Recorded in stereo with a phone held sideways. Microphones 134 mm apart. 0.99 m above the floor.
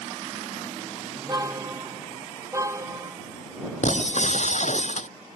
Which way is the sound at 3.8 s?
60° left (ahead or behind).